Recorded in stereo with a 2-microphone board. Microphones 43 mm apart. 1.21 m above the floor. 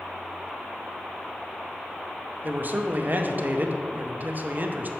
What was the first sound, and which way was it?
A man speaking, 45° right (ahead or behind).